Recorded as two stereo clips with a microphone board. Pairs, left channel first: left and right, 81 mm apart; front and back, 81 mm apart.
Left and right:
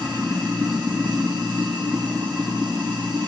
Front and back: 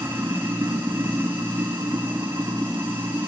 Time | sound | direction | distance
0.0 | running water | 110° right | 3.5 m